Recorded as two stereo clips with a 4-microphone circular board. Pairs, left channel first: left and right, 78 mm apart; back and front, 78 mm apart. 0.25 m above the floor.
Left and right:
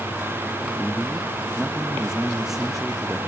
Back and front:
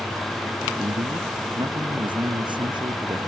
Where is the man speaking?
5° right.